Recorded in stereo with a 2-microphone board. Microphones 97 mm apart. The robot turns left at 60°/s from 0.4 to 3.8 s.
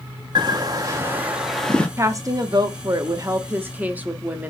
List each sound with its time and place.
0.3 s a bird: 110° right, 0.9 m; by 1.9 s 165° left, 0.9 m
2.0 s a woman speaking: 45° right, 0.6 m; by 4.5 s 155° right, 0.6 m